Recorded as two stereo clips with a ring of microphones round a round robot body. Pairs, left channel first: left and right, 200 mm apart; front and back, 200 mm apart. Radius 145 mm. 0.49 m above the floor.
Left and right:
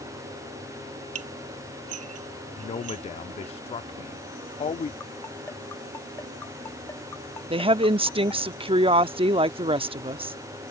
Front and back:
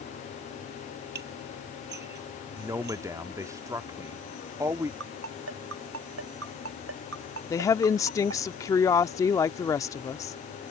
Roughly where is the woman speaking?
Ahead right.